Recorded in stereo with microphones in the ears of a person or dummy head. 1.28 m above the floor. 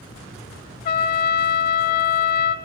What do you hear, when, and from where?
0.8 s a trumpet: 45° left (ahead or behind), 1.0 m